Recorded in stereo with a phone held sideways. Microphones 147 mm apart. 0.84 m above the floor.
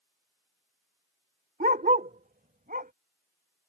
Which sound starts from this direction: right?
A dog barking, at 1.6 s.